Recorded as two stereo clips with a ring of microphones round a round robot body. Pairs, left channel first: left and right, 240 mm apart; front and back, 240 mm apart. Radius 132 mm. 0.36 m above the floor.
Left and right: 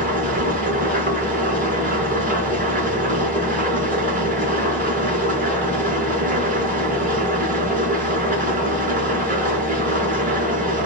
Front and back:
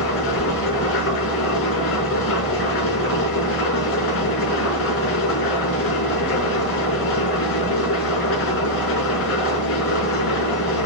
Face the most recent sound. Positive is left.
turn(degrees=-30)